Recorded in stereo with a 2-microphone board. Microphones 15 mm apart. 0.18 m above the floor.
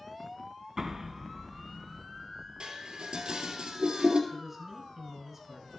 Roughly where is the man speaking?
Centre.